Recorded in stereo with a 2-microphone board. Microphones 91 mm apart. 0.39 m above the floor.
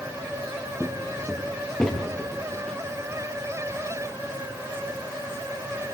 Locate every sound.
0.8 s footsteps: 5° left (ahead or behind), 3 m